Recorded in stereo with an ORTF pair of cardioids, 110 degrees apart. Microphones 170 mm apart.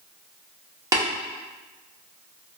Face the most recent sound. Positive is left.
turn(degrees=-20)